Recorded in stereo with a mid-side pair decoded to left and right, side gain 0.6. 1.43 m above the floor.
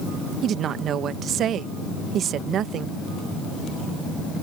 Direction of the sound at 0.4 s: 50° right.